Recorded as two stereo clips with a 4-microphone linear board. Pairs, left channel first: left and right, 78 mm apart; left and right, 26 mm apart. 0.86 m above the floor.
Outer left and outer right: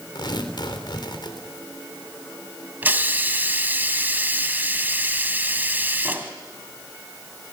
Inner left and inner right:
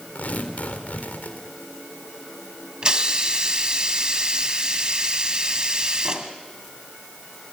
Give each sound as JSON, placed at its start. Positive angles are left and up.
{"t": 0.1, "sound": "tearing paper", "side_deg": 75, "distance_m": 3.5}
{"t": 2.8, "sound": "a hiss", "side_deg": -25, "distance_m": 1.8}